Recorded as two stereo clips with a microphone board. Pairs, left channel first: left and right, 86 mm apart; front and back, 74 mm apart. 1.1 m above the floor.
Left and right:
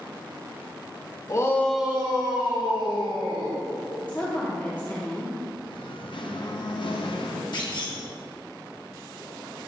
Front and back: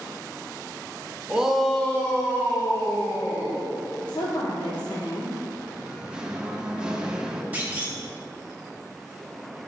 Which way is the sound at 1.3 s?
110° left.